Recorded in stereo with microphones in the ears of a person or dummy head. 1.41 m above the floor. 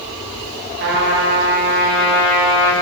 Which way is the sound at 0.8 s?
50° right (ahead or behind).